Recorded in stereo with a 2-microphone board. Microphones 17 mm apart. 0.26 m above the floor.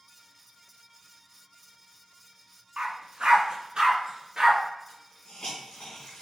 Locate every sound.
2.8 s a dog barking: 70° right (ahead or behind), 1.0 m; by 4.6 s 25° right (ahead or behind), 2.0 m
4.9 s a hiss: 55° left (ahead or behind), 2 m